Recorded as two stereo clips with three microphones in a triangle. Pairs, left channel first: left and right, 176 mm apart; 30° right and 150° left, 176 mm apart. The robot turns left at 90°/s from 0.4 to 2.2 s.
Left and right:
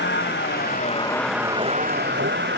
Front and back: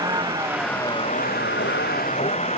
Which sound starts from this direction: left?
A vehicle, at 0.0 s.